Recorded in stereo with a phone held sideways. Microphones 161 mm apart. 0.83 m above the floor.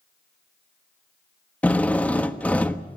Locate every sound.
1.6 s a drill: 10° left (ahead or behind), 1.2 m